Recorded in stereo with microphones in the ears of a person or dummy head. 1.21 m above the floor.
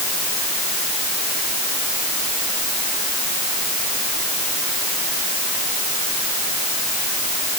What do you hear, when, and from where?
Only background noise.